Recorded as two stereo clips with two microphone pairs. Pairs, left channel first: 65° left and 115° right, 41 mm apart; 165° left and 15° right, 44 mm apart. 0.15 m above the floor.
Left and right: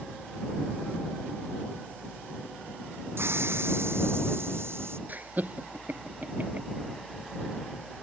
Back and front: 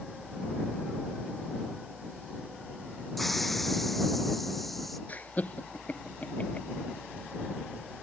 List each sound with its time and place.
3.2 s a hiss: 105° right
5.1 s laughter: 150° right